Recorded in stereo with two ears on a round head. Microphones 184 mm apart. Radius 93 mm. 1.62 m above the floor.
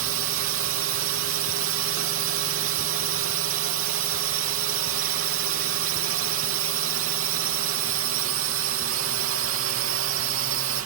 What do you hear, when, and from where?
0.0 s a drone: 75° right (ahead or behind)